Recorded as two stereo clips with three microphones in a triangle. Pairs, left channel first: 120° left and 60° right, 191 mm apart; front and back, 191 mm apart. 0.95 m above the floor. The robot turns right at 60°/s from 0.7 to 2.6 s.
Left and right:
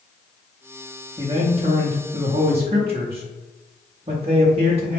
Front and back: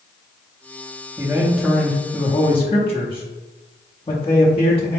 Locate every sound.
1.2 s a man speaking: 120° right, 0.7 m; by 5.0 s 35° right, 0.7 m